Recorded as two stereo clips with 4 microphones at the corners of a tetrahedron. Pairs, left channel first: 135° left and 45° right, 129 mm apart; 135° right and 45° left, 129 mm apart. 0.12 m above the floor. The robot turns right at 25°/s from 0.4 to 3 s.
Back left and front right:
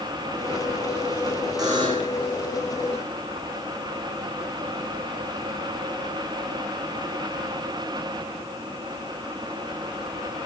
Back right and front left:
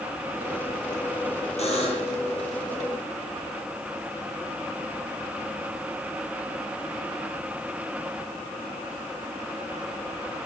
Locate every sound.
1.6 s a buzzer: 105° right, 5.5 m; by 2.2 s 90° right, 5.5 m